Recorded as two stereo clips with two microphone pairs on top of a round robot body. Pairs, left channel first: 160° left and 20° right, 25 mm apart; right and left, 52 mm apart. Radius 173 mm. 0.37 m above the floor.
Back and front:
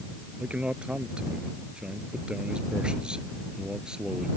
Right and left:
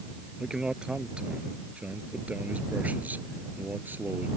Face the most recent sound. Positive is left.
turn(degrees=40)